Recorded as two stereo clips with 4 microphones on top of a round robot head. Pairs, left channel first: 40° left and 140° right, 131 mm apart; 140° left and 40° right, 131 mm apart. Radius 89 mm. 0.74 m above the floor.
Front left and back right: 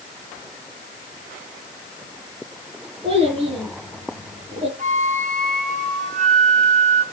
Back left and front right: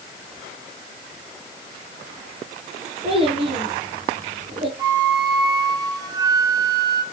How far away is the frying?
No frying in this recording.